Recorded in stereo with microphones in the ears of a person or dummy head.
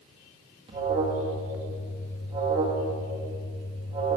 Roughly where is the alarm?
Right.